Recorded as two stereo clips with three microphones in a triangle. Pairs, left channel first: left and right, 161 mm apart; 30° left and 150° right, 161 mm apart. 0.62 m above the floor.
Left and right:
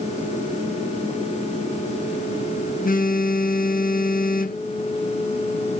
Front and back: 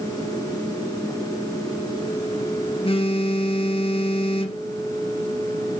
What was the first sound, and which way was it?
A phone buzzing, 80° left.